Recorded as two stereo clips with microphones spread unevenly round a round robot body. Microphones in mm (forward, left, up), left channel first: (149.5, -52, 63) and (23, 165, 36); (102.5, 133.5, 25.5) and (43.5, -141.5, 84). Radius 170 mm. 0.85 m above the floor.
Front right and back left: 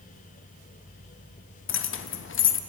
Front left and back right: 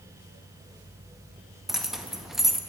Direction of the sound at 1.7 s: 10° right.